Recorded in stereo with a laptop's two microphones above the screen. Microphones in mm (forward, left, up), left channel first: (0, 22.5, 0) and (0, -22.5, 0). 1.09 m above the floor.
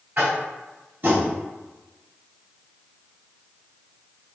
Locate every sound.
0.2 s tapping: 50° right (ahead or behind), 2.0 m